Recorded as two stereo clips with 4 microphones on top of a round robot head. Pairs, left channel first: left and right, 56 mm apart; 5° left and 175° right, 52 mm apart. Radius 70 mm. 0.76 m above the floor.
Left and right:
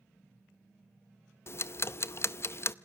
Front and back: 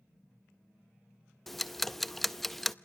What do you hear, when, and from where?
1.5 s ticking: 90° left, 0.7 m